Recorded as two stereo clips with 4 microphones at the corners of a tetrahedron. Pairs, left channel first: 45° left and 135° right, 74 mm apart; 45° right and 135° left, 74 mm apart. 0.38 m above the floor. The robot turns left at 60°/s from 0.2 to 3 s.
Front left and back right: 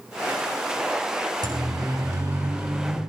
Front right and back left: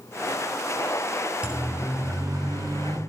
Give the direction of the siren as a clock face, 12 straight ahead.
5 o'clock.